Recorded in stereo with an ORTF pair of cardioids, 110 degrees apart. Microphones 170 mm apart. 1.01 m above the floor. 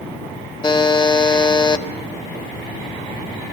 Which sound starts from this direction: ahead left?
A buzzer, at 0.6 s.